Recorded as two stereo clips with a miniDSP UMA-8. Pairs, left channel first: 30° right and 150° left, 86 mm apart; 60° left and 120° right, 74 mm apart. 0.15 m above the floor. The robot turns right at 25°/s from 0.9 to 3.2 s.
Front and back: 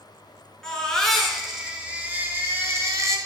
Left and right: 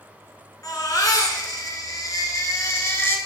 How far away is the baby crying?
About 1.3 m.